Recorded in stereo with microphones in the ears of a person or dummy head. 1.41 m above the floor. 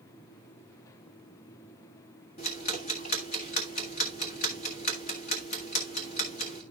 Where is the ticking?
40° left (ahead or behind), 1.7 m.